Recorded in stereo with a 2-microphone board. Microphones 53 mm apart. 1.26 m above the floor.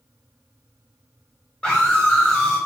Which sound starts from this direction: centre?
A scream, at 1.6 s.